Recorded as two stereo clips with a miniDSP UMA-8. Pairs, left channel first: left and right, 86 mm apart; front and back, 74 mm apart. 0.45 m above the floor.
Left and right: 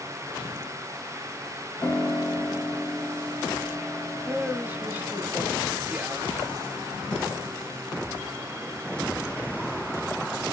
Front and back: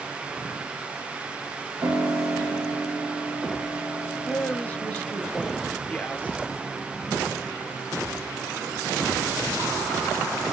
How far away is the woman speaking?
About 0.8 m.